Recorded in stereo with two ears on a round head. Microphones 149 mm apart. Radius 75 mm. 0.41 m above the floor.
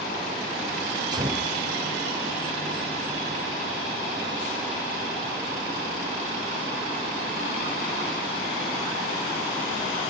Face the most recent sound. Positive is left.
turn(degrees=-25)  # may be behind; listen again after turning